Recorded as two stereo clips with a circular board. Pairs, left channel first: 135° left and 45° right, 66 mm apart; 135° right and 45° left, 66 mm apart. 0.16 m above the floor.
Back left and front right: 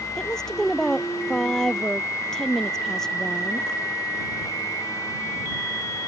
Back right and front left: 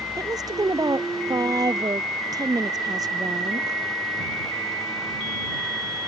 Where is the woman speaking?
55° left.